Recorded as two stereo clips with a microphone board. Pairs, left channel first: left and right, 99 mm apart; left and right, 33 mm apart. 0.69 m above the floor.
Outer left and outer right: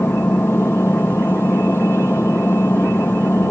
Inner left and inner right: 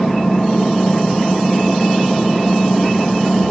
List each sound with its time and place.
0.0 s an engine running: 20° left (ahead or behind)